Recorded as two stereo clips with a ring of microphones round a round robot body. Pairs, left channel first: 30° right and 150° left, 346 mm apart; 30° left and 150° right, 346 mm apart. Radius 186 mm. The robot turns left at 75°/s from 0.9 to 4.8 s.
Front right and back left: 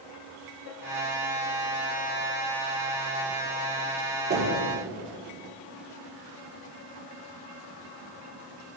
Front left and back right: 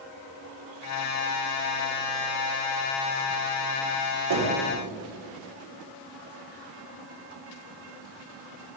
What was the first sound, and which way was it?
Knocking, 145° right.